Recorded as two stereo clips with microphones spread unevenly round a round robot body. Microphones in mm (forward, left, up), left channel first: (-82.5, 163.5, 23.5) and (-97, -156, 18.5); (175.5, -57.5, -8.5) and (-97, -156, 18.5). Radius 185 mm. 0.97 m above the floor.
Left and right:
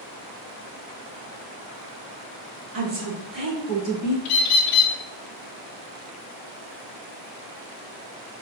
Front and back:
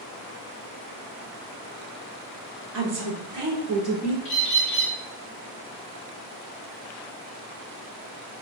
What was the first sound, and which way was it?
A woman speaking, 140° right.